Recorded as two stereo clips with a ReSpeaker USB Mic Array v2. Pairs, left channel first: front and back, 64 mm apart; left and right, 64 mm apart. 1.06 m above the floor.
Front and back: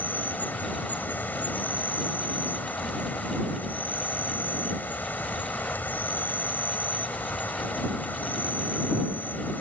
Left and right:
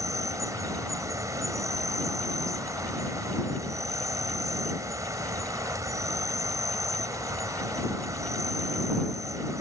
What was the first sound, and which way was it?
An insect, 60° right.